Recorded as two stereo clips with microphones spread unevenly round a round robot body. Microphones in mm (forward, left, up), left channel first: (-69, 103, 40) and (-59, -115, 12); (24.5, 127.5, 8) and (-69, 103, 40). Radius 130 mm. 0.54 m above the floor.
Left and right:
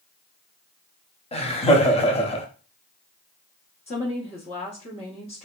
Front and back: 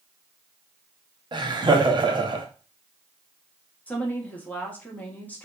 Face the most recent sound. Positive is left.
turn(degrees=35)